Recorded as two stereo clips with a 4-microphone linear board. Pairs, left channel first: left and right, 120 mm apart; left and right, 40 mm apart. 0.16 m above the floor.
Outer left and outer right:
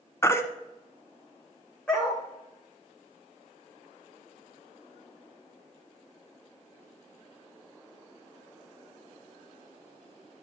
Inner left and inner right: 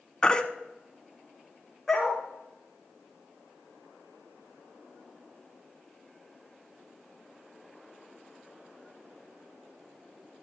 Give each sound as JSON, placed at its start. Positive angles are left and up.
{"t": 0.2, "sound": "a baby crying", "side_deg": 20, "distance_m": 0.9}
{"t": 1.9, "sound": "a dog barking", "side_deg": 10, "distance_m": 4.0}